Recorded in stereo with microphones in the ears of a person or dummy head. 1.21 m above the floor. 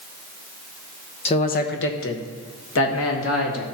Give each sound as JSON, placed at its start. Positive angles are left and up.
{"t": 1.2, "sound": "a man speaking", "side_deg": 25, "distance_m": 0.8}